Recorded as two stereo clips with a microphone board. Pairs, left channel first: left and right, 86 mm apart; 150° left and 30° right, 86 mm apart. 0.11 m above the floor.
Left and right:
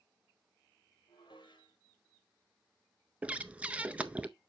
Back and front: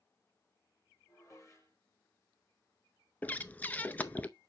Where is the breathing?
155° right, 0.6 m.